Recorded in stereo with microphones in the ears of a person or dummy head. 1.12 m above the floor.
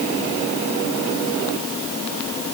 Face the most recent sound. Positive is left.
No sound to turn to.